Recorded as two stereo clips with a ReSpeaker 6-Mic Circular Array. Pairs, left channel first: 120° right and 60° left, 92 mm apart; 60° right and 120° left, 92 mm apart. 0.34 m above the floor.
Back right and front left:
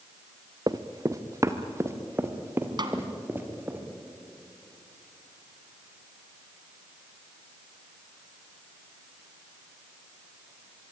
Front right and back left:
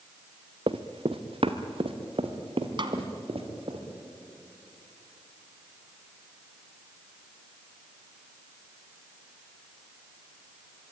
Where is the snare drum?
95° left, 2 m.